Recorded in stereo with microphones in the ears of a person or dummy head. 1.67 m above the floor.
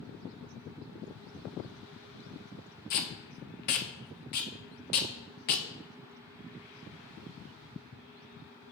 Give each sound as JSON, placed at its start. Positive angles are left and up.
{"t": 2.9, "sound": "tape being pulled", "side_deg": 50, "distance_m": 0.6}